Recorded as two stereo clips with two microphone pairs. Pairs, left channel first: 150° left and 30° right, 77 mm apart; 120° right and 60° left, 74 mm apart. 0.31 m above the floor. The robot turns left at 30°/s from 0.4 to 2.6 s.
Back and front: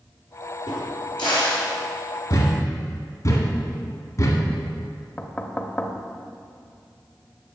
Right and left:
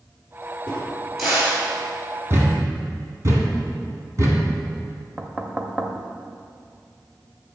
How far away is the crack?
About 3.5 m.